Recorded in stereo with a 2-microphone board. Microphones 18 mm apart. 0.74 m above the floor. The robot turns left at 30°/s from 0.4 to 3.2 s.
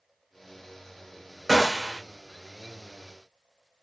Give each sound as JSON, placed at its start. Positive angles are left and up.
{"t": 1.5, "sound": "a gunshot", "side_deg": 0, "distance_m": 0.6}